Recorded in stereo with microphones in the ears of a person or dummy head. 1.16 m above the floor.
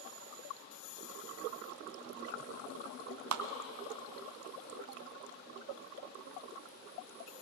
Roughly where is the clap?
Right.